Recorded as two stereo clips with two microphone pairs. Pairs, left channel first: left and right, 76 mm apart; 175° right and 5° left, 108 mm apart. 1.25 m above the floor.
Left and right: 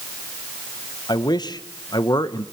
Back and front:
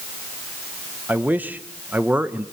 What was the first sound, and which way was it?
A man speaking, 75° left.